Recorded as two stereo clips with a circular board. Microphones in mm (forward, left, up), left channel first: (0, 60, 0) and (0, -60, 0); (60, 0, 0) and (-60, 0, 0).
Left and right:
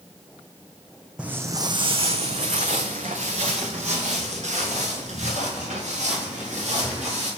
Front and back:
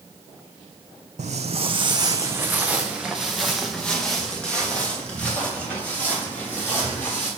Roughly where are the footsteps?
Behind.